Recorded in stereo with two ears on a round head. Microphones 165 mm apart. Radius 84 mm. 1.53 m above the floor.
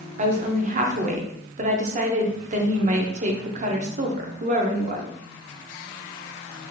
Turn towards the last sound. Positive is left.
turn(degrees=-40)  # may be behind; listen again after turning